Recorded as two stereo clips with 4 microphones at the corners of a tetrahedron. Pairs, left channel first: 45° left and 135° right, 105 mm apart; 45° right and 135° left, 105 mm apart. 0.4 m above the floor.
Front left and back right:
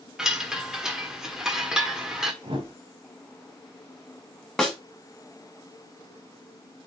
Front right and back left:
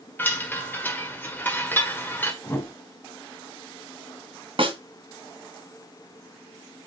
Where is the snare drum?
135° left, 2 m.